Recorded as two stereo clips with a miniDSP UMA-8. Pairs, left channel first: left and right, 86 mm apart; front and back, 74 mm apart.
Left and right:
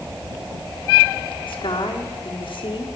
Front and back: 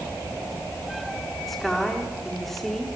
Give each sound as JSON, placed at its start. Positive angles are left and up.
{"t": 1.5, "sound": "a woman speaking", "azimuth_deg": 90, "distance_m": 3.5}